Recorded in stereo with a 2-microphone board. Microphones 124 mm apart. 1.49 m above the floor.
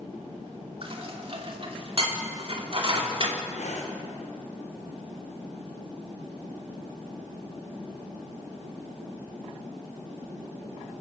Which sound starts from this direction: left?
Breathing, at 3.5 s.